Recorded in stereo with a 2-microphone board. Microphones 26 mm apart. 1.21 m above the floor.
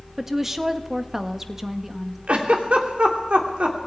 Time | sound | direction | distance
0.2 | a woman speaking | 10° right (ahead or behind) | 1.3 m
2.3 | a giggle | 45° right (ahead or behind) | 2.5 m